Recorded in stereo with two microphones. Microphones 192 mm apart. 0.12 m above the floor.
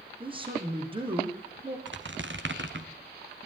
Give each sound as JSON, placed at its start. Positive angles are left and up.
{"t": 0.2, "sound": "a man speaking", "side_deg": -25, "distance_m": 5.5}
{"t": 1.9, "sound": "a squeak", "side_deg": -75, "distance_m": 2.0}